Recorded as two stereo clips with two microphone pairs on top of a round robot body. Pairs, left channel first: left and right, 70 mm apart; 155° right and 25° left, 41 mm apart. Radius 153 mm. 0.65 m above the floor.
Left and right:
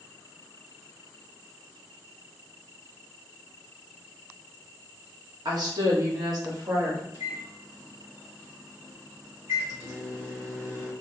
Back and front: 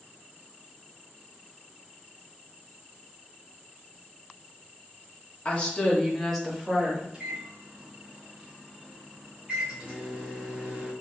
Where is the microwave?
40° right, 1.6 m.